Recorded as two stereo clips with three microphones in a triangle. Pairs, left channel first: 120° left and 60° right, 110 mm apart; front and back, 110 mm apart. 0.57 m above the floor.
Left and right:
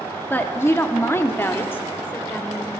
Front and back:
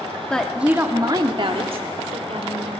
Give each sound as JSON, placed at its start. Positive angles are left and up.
{"t": 0.3, "sound": "a woman speaking", "azimuth_deg": 70, "distance_m": 0.8}